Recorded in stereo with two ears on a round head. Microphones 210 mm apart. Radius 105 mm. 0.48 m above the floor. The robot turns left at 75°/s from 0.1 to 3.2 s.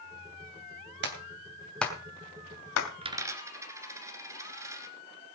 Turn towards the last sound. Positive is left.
turn(degrees=-15)  # may be behind; listen again after turning